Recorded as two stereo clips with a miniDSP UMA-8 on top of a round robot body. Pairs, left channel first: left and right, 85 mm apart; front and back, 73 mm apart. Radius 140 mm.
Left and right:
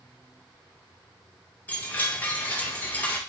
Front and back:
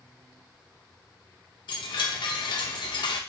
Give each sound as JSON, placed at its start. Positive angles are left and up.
{"t": 1.7, "sound": "a chime", "azimuth_deg": 20, "distance_m": 0.6}